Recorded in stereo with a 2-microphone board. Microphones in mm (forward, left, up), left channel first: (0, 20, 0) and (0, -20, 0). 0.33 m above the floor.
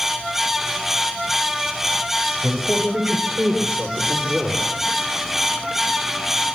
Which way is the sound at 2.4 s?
30° right (ahead or behind).